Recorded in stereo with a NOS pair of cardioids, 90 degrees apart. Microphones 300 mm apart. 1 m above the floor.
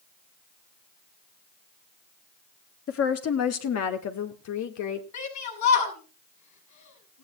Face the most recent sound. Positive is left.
turn(degrees=70)